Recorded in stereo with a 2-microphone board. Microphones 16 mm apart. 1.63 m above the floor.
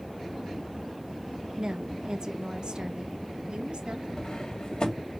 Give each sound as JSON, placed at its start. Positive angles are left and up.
{"t": 1.6, "sound": "a woman speaking", "side_deg": -50, "distance_m": 1.6}
{"t": 4.2, "sound": "cutlery clinking", "side_deg": 60, "distance_m": 1.8}